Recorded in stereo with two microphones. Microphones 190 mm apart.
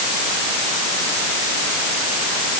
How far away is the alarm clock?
No alarm clock in this recording.